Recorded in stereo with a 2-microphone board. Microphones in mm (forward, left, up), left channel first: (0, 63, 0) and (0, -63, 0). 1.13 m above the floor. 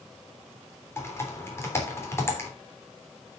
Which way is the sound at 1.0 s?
20° left (ahead or behind).